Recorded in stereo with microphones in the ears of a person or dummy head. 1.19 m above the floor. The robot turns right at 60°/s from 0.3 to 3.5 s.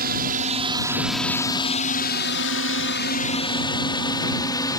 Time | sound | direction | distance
0.0 | a drone | 50° right (ahead or behind) | ?